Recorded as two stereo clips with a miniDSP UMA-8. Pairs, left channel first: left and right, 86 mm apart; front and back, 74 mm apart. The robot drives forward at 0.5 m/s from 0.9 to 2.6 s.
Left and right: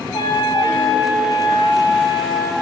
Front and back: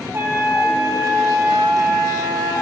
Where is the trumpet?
120° left, 2.5 m; by 2.5 s 135° left, 3 m.